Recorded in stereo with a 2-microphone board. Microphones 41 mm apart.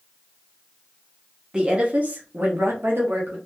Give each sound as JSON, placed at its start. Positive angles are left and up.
{"t": 1.5, "sound": "a woman speaking", "side_deg": -20, "distance_m": 0.8}